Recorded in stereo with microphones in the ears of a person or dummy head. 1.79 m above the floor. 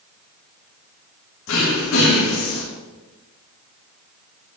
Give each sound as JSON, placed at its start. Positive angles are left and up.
{"t": 1.5, "sound": "throat clearing", "side_deg": 70, "distance_m": 3.0}